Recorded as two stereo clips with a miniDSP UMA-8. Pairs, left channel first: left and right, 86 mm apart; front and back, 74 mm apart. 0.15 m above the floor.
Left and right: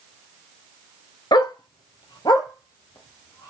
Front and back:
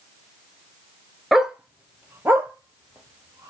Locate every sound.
1.3 s a dog barking: 95° left, 0.5 m; by 3.5 s 135° left, 1.5 m